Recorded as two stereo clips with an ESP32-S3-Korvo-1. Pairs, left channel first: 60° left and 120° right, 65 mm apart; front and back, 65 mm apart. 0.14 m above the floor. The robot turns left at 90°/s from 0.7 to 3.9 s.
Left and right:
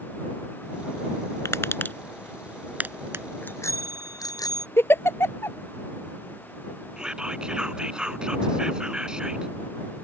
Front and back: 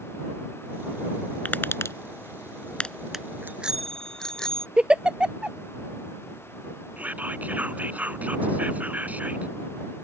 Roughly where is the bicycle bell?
Behind left.